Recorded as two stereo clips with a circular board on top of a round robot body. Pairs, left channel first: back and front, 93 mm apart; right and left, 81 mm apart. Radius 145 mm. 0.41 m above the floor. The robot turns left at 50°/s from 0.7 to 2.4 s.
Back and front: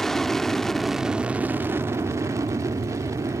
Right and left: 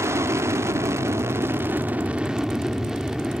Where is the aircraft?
95° left; by 3.4 s 10° left.